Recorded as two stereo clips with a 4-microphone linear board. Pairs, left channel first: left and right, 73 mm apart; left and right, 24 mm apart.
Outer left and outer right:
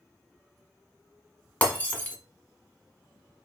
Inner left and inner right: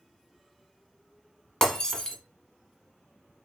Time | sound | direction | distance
1.6 | breaking glass | 25° left (ahead or behind) | 1.3 m